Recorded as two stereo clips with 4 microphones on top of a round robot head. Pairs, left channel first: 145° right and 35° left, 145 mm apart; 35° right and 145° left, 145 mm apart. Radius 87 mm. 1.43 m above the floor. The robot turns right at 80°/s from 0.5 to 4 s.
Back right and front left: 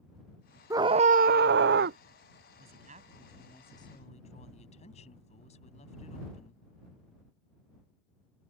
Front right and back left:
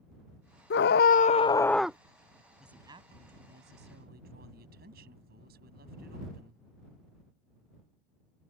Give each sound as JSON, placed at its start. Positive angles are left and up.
{"t": 0.7, "sound": "a scream", "azimuth_deg": -35}
{"t": 2.6, "sound": "a woman speaking", "azimuth_deg": 55}